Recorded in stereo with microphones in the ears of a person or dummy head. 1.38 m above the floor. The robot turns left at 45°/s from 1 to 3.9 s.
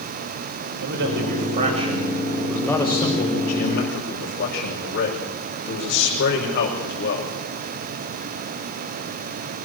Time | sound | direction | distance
0.8 | a man speaking | 110° right | 6 m